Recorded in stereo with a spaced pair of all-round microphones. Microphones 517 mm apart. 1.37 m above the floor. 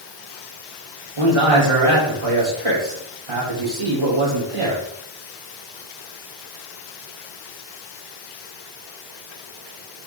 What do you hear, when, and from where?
1.2 s a man speaking: 85° right, 3 m